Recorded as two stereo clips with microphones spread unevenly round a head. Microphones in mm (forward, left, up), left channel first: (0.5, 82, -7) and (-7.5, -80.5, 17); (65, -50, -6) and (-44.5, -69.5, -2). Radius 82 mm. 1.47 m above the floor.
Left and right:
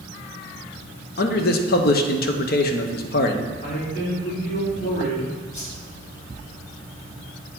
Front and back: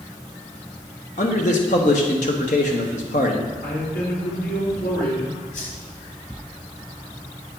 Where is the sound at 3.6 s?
40° left, 3 m.